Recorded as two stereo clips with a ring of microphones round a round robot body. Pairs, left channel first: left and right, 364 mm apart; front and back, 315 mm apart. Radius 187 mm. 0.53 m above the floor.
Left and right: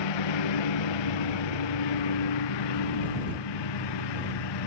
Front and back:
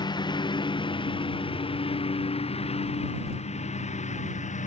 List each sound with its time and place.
0.0 s a lawn mower: 75° left; by 4.7 s 70° left